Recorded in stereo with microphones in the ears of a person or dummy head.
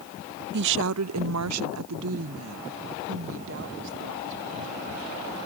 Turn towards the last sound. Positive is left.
turn(degrees=-60)  # may be behind; listen again after turning